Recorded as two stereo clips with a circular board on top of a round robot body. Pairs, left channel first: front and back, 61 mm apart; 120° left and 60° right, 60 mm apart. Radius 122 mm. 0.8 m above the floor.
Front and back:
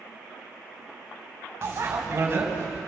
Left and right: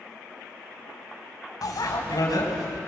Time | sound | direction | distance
1.6 | a bicycle bell | 135° left | 4.5 m